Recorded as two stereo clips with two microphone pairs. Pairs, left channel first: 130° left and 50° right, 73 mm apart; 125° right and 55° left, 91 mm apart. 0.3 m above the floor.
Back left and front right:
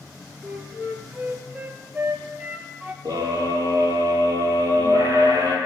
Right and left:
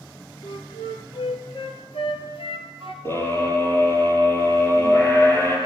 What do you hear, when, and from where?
0.4 s a flute: 115° right, 2.5 m
3.0 s a scream: 60° right, 7 m